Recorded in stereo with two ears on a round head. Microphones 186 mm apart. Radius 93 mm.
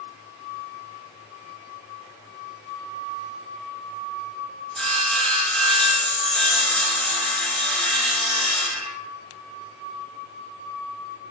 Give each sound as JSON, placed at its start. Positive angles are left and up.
{"t": 4.8, "sound": "sawing", "side_deg": 5, "distance_m": 1.6}